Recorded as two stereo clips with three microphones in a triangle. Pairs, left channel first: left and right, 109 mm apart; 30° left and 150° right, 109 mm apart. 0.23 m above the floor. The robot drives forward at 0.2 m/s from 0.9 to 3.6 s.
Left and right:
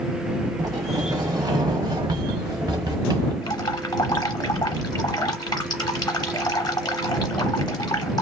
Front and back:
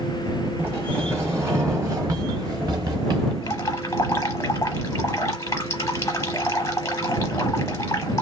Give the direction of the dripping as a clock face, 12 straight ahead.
10 o'clock.